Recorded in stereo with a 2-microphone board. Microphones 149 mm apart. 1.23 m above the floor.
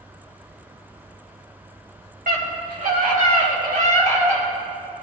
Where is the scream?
80° right, 3.5 m; by 4.5 s 60° right (ahead or behind), 3 m.